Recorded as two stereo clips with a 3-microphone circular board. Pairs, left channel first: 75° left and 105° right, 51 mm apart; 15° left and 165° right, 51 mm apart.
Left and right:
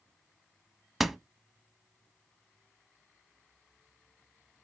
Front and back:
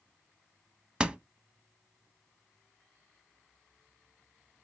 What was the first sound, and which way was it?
A door slam, 170° left.